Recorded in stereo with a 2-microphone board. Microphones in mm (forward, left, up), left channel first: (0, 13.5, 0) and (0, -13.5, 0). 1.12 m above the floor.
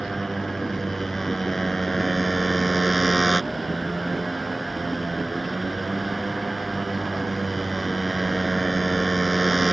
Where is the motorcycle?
10° left (ahead or behind).